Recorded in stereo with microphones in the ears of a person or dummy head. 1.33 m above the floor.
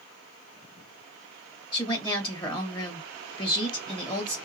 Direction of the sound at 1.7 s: 25° left (ahead or behind).